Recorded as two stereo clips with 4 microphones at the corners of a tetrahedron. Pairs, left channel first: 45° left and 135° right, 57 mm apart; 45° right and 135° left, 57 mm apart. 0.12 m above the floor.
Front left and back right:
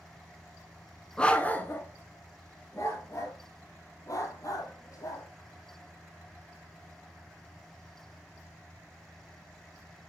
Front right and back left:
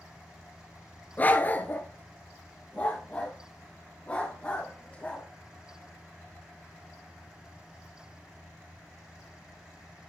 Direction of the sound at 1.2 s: 20° right.